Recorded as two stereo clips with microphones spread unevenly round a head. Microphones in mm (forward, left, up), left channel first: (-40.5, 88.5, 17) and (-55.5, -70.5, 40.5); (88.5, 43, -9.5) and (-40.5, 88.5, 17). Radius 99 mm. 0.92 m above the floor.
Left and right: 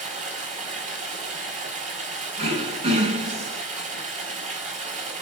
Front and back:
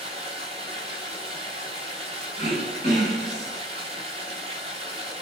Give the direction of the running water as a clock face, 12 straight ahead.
5 o'clock.